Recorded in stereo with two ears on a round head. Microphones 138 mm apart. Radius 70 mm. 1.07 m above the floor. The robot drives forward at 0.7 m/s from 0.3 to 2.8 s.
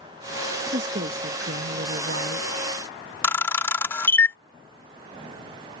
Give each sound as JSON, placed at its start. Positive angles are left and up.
{"t": 0.7, "sound": "a woman speaking", "side_deg": -50}
{"t": 3.2, "sound": "a camera shutter", "side_deg": 15}